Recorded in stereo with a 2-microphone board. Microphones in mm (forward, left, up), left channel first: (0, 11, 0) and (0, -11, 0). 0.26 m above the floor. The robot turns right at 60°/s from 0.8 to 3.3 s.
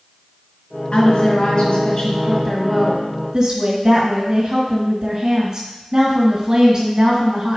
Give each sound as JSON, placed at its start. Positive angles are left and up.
{"t": 0.9, "sound": "a woman speaking", "azimuth_deg": 75, "distance_m": 1.8}